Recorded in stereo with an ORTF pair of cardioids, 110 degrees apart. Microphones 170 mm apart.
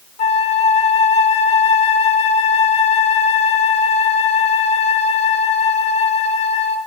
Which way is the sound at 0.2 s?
40° left.